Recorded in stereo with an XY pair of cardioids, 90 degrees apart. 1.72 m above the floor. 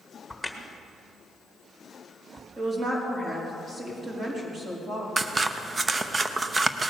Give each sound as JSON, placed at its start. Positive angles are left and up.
{"t": 0.3, "sound": "a crack", "azimuth_deg": 5, "distance_m": 1.6}
{"t": 2.6, "sound": "a woman speaking", "azimuth_deg": -40, "distance_m": 4.5}
{"t": 5.2, "sound": "scissors", "azimuth_deg": -35, "distance_m": 0.8}